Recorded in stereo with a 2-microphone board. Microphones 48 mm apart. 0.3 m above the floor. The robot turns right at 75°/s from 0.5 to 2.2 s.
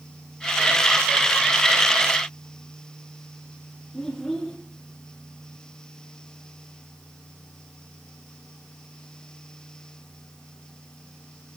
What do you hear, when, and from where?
3.9 s a child speaking: 5° left (ahead or behind), 5 m